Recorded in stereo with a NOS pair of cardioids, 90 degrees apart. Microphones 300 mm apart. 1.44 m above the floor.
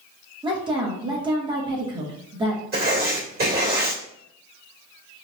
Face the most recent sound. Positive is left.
turn(degrees=-30)